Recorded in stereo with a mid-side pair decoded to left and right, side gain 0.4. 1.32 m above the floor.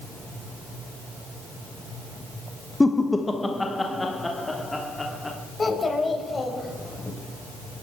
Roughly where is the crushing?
No crushing in this recording.